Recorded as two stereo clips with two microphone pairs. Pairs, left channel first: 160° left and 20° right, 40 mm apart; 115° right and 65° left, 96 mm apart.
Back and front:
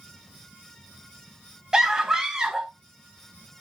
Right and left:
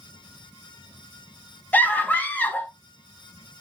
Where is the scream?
70° right, 1.3 m.